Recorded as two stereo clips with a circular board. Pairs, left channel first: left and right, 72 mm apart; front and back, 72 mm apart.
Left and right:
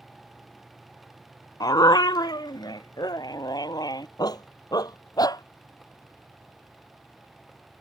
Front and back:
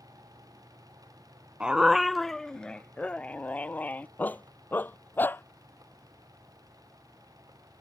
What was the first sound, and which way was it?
A dog barking, 105° left.